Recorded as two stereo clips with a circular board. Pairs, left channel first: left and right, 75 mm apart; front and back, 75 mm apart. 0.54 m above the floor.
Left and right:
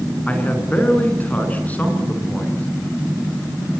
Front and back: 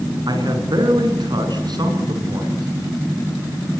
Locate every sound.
0.3 s a man speaking: 160° left, 5 m